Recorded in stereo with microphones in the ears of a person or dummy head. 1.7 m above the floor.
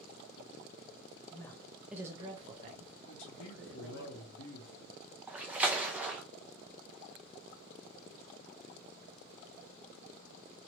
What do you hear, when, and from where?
1.3 s a woman speaking: 25° left (ahead or behind), 0.7 m; by 4.0 s 65° right (ahead or behind), 1.3 m
3.0 s a man speaking: 75° left (ahead or behind), 1.0 m
5.3 s a splash: 10° right (ahead or behind), 0.6 m